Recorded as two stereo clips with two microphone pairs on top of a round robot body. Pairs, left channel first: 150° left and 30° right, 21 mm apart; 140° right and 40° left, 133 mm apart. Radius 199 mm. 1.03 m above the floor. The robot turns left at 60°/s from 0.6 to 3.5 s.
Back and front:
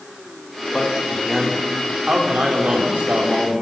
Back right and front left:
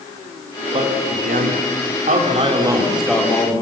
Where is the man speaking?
90° left, 3 m; by 3.6 s 75° right, 3 m.